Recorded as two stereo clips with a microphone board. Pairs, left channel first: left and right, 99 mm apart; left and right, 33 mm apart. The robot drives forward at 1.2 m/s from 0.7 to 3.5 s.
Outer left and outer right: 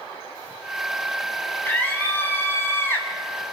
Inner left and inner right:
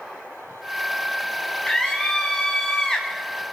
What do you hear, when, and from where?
1.6 s a scream: 20° left (ahead or behind), 8 m; by 3.1 s 25° left (ahead or behind), 6.5 m